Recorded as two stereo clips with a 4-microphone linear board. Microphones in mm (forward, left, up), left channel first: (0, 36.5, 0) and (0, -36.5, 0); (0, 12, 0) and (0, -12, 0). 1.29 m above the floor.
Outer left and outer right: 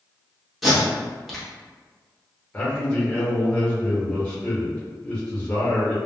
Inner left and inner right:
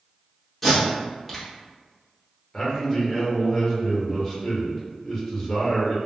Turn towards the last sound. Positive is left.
turn(degrees=15)  # may be behind; listen again after turning